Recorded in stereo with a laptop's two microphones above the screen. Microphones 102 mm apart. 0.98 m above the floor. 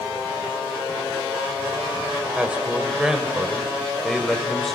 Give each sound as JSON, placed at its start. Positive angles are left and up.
{"t": 2.4, "sound": "a man speaking", "side_deg": -10, "distance_m": 4.0}